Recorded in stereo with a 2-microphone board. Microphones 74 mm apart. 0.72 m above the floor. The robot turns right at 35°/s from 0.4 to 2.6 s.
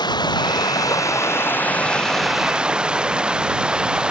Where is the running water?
115° left; by 4.1 s 170° right.